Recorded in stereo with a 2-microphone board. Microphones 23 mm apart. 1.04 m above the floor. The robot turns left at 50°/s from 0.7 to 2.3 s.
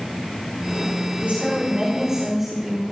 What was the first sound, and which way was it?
A woman speaking, 110° right.